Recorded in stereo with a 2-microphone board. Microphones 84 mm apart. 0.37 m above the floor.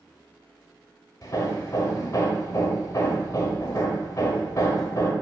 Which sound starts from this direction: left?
Hammering, at 1.2 s.